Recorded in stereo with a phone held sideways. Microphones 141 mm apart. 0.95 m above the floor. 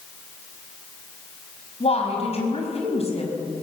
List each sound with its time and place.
1.8 s a woman speaking: 45° left (ahead or behind), 5 m